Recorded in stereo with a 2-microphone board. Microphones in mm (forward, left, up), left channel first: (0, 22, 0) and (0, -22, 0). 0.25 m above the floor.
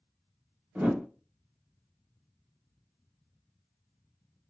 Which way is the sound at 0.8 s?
30° right (ahead or behind).